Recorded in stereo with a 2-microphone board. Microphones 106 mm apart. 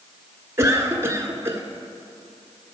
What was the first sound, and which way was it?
A cough, 25° right (ahead or behind).